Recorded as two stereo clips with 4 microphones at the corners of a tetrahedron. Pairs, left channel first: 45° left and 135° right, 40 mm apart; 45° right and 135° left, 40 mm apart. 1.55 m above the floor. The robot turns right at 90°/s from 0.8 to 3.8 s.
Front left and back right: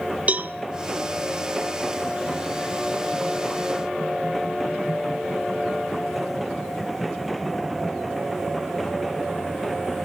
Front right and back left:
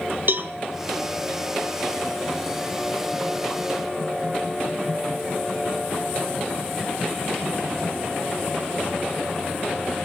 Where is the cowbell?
170° left, 1.7 m.